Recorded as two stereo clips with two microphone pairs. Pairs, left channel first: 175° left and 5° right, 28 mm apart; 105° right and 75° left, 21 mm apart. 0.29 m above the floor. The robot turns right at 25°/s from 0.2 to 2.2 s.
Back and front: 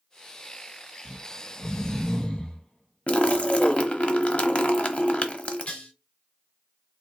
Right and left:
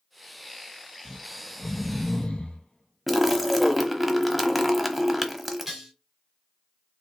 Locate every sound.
1.1 s snoring: 155° right, 1.4 m; by 3.9 s 130° right, 1.4 m
3.1 s a splash: 160° left, 0.9 m
5.7 s dishes clattering: 150° left, 2.5 m